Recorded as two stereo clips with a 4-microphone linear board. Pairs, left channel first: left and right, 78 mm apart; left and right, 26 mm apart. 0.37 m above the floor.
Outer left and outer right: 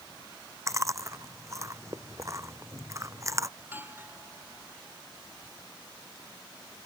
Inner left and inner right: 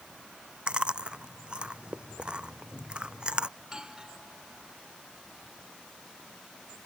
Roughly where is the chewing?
Right.